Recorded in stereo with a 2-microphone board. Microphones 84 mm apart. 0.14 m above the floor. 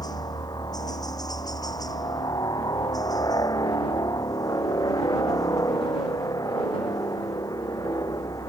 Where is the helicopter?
50° left (ahead or behind); by 8.5 s 45° left (ahead or behind).